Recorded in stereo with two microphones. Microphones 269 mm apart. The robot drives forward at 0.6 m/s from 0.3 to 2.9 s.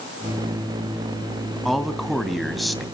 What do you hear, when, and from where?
1.6 s a man speaking: centre (ahead or behind), 2 m